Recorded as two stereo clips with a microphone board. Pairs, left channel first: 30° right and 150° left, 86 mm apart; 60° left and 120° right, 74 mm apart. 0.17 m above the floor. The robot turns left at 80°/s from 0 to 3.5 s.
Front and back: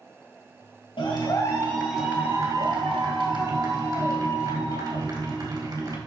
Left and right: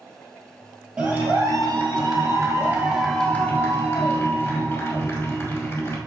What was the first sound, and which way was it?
A clap, 45° right.